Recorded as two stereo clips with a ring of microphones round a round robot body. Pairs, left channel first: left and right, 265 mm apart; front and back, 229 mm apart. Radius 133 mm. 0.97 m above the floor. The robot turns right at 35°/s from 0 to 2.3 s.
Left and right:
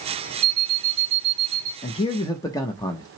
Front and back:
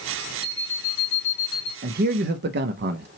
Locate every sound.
0.4 s an alarm clock: 90° right, 0.9 m; by 1.7 s 45° right, 0.9 m
1.8 s a man speaking: 145° left, 0.6 m; by 3.1 s 165° left, 0.6 m